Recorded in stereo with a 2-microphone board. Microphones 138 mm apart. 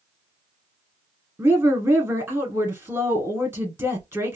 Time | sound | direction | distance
1.4 | a woman speaking | 15° right (ahead or behind) | 1.6 m